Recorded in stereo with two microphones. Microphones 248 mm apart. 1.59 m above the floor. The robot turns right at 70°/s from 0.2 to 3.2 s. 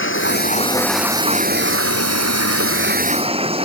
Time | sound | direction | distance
0.0 | running water | 130° left | ?